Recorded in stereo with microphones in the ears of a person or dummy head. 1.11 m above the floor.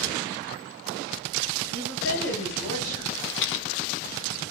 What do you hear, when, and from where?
1.7 s a woman speaking: 60° left (ahead or behind), 6.5 m; by 3.0 s 70° left (ahead or behind), 7 m
3.1 s a rattle: 70° left (ahead or behind), 0.6 m